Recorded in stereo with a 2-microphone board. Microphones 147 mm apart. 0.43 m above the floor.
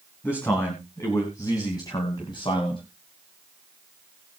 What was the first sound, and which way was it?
A man speaking, 15° left (ahead or behind).